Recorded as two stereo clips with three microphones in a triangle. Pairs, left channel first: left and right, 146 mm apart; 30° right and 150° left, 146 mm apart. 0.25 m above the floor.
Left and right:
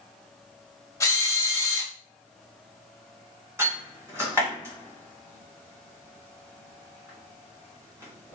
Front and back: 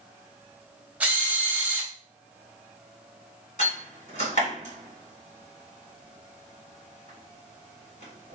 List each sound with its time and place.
1.0 s a drill: 90° left, 0.7 m
3.6 s a door slam: 20° right, 1.7 m